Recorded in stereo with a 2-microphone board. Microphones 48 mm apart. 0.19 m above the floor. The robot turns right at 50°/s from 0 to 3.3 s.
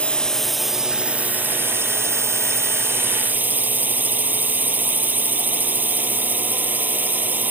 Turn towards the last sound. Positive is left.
turn(degrees=-40)